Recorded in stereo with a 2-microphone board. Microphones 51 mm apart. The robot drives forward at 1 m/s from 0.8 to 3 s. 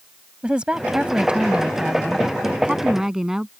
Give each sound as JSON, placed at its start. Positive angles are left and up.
{"t": 0.4, "sound": "a woman speaking", "side_deg": -20}